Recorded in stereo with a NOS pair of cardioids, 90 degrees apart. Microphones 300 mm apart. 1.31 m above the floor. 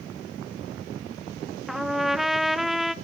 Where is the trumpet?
Straight ahead, 0.5 m.